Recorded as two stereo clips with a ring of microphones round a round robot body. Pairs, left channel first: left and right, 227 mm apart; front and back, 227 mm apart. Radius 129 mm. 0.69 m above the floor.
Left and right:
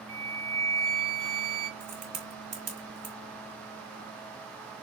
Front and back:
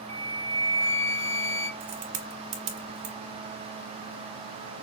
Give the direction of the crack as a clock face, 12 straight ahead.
5 o'clock.